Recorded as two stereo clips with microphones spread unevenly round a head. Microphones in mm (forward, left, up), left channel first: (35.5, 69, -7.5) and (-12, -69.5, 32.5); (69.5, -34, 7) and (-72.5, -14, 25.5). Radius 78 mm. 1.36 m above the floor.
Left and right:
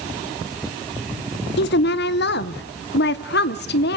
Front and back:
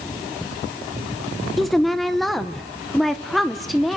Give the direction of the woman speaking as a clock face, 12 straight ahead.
9 o'clock.